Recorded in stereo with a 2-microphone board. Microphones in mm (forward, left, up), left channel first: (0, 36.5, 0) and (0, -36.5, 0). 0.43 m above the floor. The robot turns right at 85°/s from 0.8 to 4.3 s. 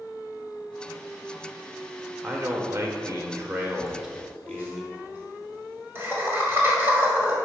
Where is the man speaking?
160° right, 1.0 m; by 4.8 s 15° left, 1.0 m.